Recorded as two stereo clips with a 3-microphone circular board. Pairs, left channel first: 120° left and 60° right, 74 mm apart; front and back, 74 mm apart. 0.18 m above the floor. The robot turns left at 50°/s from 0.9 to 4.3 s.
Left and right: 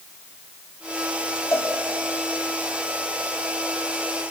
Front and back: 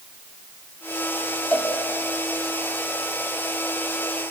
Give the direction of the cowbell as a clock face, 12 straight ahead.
10 o'clock.